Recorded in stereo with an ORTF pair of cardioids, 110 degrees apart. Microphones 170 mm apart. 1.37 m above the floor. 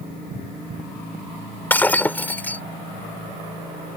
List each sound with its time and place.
1.7 s breaking glass: 10° left